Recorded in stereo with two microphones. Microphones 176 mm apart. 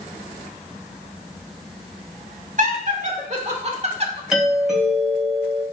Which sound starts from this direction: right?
Laughter, at 2.6 s.